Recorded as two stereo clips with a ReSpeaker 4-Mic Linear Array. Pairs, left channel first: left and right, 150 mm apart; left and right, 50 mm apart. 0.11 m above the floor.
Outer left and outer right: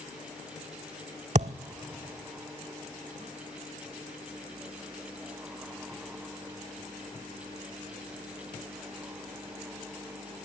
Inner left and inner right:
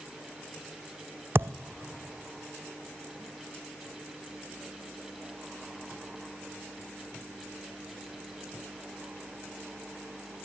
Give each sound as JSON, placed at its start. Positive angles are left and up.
{"t": 1.4, "sound": "a thud", "side_deg": -50, "distance_m": 0.6}